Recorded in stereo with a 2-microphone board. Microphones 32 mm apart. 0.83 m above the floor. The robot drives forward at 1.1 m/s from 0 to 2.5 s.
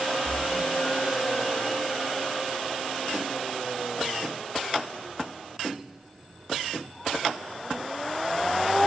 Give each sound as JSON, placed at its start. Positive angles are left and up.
{"t": 0.2, "sound": "a splash", "side_deg": 0, "distance_m": 5.0}